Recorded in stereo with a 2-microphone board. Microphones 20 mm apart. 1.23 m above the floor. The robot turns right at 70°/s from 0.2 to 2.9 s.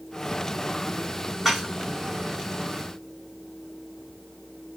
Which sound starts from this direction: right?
Dishes clattering, at 1.4 s.